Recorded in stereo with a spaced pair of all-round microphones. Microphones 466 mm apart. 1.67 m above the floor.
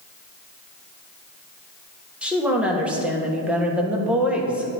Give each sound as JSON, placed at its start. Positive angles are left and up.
{"t": 2.2, "sound": "a woman speaking", "side_deg": 0, "distance_m": 1.6}